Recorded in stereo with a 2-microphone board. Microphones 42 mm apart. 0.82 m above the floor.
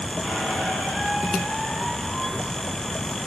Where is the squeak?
10° left (ahead or behind), 3 m.